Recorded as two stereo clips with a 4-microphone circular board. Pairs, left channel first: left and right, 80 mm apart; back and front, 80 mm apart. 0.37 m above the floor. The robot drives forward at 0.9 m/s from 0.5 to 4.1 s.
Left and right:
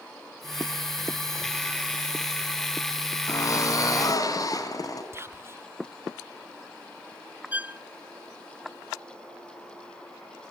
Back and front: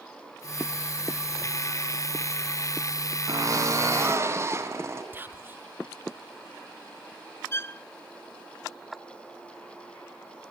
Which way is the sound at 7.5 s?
145° right.